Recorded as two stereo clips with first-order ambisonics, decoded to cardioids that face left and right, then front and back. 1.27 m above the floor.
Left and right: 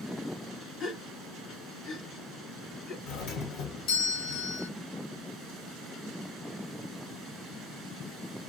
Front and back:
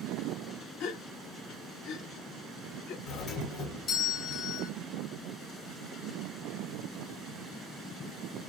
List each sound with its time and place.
0.8 s a gasp: 35° left, 1.6 m
3.1 s a doorbell: 60° left, 1.7 m